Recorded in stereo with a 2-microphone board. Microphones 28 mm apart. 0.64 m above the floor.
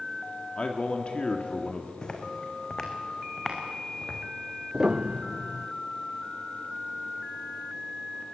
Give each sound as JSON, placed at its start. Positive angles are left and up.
{"t": 0.6, "sound": "a man speaking", "side_deg": 40, "distance_m": 1.5}
{"t": 2.0, "sound": "footsteps", "side_deg": 30, "distance_m": 2.0}
{"t": 4.7, "sound": "a piano", "side_deg": -25, "distance_m": 0.6}